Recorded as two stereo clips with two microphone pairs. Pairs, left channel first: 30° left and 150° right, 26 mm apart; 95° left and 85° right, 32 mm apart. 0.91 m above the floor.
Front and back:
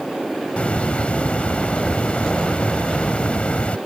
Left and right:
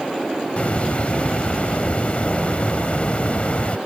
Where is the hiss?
55° left.